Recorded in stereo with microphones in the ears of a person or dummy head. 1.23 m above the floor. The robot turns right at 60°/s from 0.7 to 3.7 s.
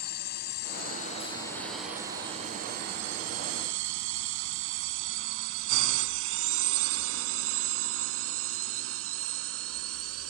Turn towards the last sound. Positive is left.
turn(degrees=-80)